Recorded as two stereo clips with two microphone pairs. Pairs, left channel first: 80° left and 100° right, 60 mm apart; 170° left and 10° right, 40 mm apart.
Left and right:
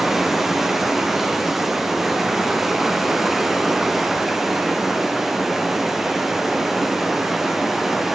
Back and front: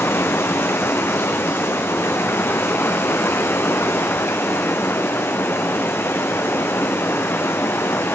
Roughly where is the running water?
Behind.